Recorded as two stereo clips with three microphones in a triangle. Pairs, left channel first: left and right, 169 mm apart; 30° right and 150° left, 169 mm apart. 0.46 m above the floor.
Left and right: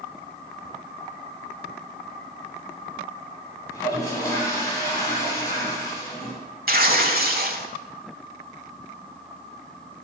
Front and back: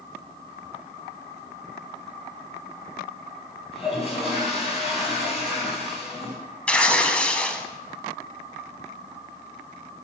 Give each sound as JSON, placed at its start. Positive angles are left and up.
{"t": 3.7, "sound": "a toilet flushing", "azimuth_deg": 20, "distance_m": 3.5}
{"t": 6.7, "sound": "tearing paper", "azimuth_deg": -115, "distance_m": 0.8}